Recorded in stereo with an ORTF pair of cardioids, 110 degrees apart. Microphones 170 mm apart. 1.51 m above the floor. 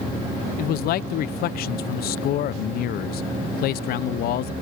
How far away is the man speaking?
About 0.7 m.